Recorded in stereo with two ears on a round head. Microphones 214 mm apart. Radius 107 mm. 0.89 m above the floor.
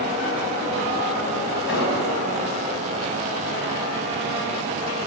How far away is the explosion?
About 5 m.